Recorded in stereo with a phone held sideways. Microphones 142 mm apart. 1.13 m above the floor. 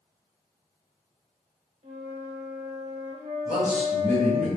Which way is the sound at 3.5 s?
65° left (ahead or behind).